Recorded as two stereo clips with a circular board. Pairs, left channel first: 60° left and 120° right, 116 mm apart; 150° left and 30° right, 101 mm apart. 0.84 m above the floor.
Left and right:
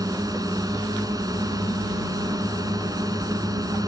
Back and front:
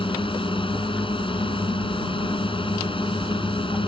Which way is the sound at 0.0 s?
Straight behind.